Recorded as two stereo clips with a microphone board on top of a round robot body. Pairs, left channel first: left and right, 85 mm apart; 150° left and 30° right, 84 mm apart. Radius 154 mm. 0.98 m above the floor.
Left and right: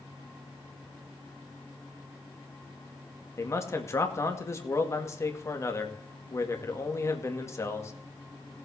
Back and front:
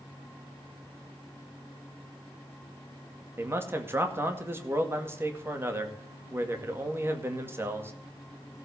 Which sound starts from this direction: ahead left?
A man speaking, at 3.4 s.